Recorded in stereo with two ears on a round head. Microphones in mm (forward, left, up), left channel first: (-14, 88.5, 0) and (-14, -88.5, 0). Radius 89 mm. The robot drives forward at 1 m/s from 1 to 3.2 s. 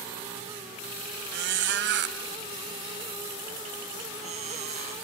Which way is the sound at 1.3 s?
55° right (ahead or behind).